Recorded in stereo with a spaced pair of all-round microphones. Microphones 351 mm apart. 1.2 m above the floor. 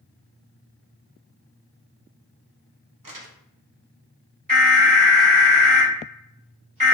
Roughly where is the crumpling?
Right.